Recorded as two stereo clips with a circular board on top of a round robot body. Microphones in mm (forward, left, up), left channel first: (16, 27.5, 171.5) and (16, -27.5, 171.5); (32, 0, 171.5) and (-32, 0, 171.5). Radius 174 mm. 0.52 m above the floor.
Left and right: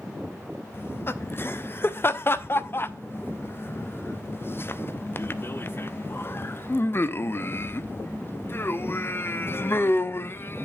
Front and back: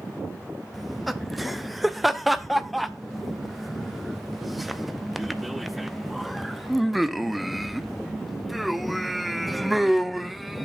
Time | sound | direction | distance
0.7 | laughter | 90° left | 0.8 m